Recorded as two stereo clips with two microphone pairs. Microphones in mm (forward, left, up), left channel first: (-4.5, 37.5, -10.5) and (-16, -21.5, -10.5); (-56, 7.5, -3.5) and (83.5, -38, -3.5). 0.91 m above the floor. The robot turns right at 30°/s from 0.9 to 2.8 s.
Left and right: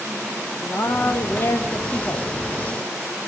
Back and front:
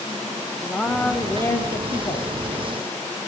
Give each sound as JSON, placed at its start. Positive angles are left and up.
{"t": 0.6, "sound": "a woman speaking", "azimuth_deg": 80, "distance_m": 0.8}